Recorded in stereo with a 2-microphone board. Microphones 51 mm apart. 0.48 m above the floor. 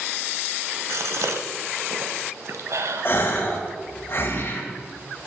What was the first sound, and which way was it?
A gasp, 70° right (ahead or behind).